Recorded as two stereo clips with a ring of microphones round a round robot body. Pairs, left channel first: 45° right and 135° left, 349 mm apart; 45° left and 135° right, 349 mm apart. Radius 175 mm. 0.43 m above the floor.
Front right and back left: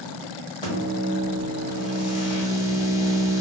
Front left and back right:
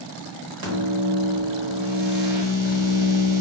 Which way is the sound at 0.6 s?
120° right.